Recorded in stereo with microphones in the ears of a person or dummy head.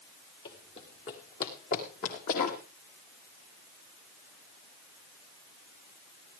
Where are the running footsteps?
25° left (ahead or behind), 1.8 m; by 2.6 s 45° left (ahead or behind), 2.5 m.